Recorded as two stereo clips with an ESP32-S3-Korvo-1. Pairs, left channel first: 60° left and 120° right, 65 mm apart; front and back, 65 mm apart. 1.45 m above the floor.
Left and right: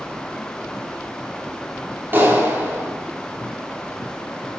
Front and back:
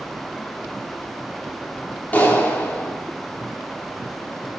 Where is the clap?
65° right, 3.5 m.